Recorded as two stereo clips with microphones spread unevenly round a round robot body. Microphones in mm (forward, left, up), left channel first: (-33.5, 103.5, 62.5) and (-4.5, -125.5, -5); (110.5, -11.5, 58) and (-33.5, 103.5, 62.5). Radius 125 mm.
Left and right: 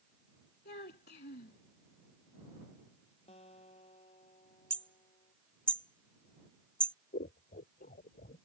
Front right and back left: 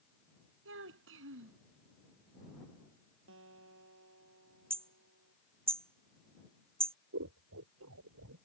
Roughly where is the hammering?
Behind right.